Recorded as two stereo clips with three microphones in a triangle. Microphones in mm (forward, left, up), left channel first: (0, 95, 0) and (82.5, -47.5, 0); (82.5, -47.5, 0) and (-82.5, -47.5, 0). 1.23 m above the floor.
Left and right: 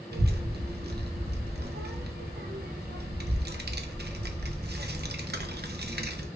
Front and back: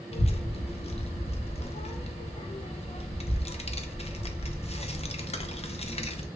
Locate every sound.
0.1 s a child speaking: 55° right, 0.6 m